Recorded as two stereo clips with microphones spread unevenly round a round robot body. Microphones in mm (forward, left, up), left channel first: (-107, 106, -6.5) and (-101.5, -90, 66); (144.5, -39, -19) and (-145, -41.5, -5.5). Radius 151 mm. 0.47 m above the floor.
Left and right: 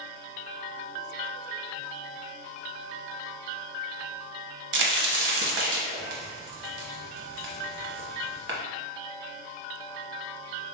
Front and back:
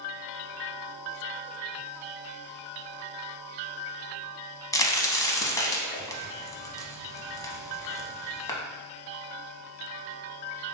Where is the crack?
80° right, 0.7 m.